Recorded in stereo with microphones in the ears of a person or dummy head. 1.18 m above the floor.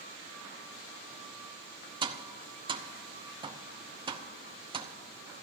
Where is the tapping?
25° right (ahead or behind), 0.7 m.